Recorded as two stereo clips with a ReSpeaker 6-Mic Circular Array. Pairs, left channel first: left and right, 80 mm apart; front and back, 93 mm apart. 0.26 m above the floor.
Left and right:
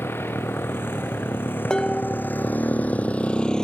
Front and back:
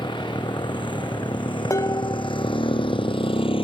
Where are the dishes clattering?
15° left.